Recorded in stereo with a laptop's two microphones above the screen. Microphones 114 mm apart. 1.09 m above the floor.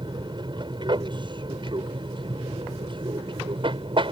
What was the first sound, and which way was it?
An aircraft, 40° right (ahead or behind).